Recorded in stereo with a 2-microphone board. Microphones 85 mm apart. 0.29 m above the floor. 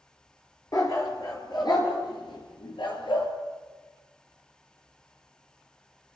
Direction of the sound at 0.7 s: 40° left (ahead or behind).